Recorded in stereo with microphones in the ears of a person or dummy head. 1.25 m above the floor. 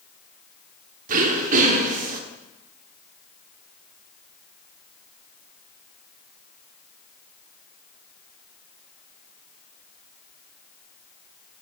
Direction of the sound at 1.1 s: 50° right (ahead or behind).